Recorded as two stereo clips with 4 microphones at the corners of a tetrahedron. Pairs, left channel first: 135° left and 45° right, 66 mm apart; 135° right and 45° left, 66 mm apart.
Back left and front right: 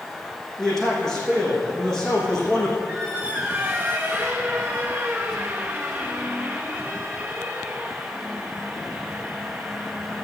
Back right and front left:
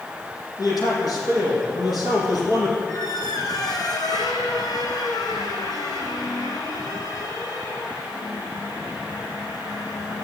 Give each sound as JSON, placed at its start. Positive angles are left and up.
{"t": 0.6, "sound": "a man speaking", "azimuth_deg": -145, "distance_m": 6.5}
{"t": 2.9, "sound": "a squeak", "azimuth_deg": -120, "distance_m": 1.9}